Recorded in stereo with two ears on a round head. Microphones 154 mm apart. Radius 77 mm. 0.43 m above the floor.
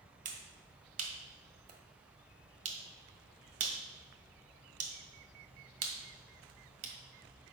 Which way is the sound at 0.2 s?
50° right (ahead or behind).